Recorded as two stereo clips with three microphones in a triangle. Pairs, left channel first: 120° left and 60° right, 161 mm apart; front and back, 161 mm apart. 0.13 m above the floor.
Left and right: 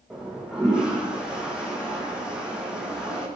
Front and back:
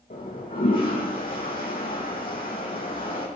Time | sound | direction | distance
0.1 | a toilet flushing | 25° left | 4 m